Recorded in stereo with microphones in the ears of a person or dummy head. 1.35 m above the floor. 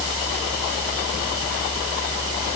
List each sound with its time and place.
Only background noise.